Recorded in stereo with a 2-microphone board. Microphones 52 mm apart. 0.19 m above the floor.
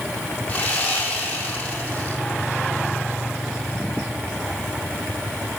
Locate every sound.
0.5 s sawing: 25° left (ahead or behind), 4 m